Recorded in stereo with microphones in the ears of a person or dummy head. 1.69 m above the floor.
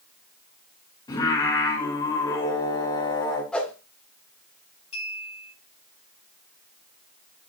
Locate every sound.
1.1 s singing: 25° left (ahead or behind), 4.5 m
3.5 s a whoosh: 10° left (ahead or behind), 2.5 m
4.9 s a clink: 40° left (ahead or behind), 8 m